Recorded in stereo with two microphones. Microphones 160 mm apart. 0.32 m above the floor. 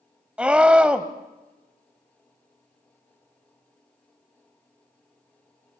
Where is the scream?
5° right (ahead or behind), 1.6 m.